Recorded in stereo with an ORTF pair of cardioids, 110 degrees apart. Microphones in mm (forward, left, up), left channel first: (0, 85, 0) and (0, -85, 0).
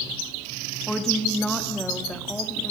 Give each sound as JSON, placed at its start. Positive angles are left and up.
{"t": 0.9, "sound": "a woman speaking", "azimuth_deg": 5, "distance_m": 2.5}